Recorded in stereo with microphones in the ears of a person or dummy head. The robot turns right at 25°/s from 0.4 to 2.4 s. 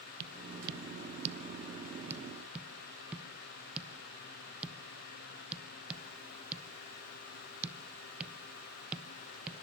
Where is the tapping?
55° right (ahead or behind), 1.0 m; by 9.6 s 5° right (ahead or behind), 1.0 m.